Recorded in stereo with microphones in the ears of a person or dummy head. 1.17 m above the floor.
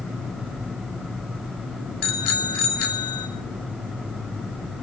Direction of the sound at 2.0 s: 80° left.